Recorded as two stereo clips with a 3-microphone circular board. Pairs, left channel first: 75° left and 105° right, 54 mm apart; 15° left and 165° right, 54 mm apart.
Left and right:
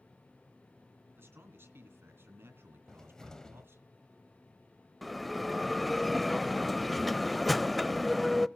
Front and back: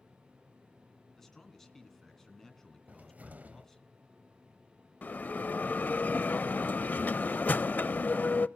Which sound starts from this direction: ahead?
A bell, at 5.0 s.